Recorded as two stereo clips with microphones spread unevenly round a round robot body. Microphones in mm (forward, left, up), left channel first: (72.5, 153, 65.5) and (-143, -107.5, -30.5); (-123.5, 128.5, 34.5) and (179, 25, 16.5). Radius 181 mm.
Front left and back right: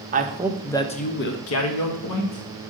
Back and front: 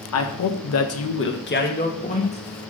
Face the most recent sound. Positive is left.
turn(degrees=85)